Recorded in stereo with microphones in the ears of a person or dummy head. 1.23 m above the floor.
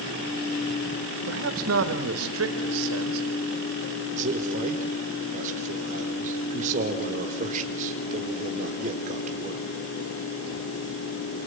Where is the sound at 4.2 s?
45° right (ahead or behind), 3.5 m.